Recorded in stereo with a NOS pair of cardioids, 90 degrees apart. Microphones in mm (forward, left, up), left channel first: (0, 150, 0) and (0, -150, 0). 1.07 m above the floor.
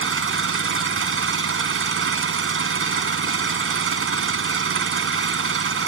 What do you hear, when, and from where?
0.0 s an engine running: 45° right